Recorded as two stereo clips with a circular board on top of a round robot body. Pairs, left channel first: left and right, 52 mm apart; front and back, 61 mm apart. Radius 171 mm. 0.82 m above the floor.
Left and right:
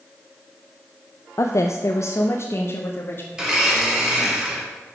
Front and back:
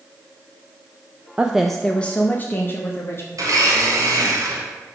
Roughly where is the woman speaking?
Left.